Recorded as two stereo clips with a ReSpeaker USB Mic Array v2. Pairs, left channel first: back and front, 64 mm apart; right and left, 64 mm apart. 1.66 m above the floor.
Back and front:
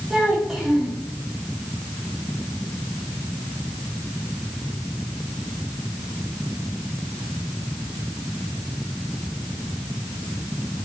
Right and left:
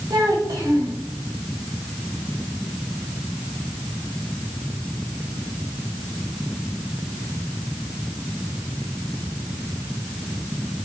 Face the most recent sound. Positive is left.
turn(degrees=80)